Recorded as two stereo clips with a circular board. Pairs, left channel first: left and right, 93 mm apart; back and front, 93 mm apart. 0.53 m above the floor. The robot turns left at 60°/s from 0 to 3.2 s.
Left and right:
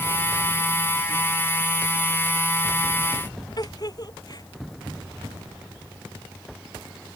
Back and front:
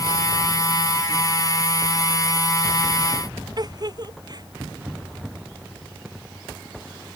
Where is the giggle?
45° left.